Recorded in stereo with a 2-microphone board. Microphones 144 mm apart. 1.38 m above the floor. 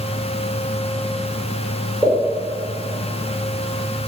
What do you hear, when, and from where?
2.0 s a pop: 5° right (ahead or behind), 1.6 m